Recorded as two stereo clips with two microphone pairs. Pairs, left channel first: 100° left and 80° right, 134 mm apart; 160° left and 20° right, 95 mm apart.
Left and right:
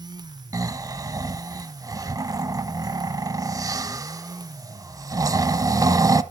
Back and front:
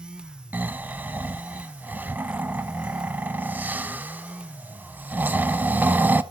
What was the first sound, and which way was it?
Snoring, 65° right.